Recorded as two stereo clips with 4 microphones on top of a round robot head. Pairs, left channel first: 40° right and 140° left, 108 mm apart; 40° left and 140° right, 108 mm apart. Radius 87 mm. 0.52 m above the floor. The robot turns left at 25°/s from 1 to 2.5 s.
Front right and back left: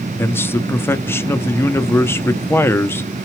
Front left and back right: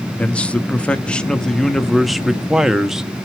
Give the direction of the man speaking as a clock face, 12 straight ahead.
1 o'clock.